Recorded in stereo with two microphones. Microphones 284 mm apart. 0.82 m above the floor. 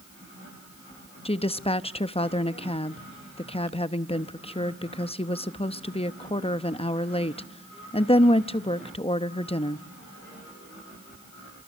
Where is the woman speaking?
20° left (ahead or behind), 0.7 m.